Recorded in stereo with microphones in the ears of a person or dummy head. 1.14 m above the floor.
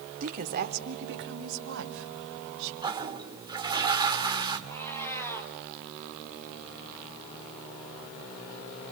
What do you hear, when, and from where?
0.2 s a woman speaking: 45° right (ahead or behind), 2.5 m; by 2.7 s 80° right, 4.5 m
2.8 s a toilet flushing: 30° right (ahead or behind), 2 m
4.7 s a cat meowing: 10° left (ahead or behind), 3.5 m